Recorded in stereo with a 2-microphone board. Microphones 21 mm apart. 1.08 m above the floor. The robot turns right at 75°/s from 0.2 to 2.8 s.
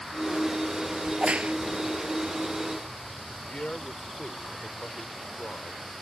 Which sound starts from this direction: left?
A man speaking, at 3.5 s.